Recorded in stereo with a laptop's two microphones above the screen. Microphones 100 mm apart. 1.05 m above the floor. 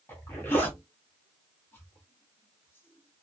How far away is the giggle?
I don't hear a giggle.